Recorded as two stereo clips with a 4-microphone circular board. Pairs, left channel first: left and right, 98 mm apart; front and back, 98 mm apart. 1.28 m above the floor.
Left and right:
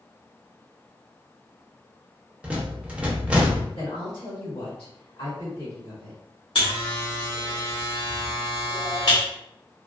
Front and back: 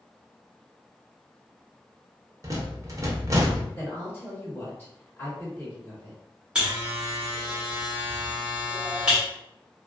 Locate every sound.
2.4 s a rattle: 160° right, 0.6 m
3.8 s a woman speaking: 65° left, 1.8 m
6.5 s a buzzer: 100° left, 1.3 m